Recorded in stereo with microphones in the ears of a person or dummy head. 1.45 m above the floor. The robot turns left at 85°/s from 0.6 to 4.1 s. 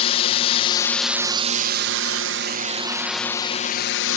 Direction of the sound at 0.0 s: 35° left.